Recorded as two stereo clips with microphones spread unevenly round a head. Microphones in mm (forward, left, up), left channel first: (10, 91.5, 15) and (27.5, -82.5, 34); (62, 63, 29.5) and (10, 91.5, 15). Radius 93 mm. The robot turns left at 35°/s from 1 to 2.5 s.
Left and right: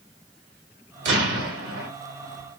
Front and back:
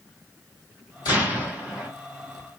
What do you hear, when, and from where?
1.1 s an explosion: 55° right, 2 m; by 1.9 s 85° right, 2 m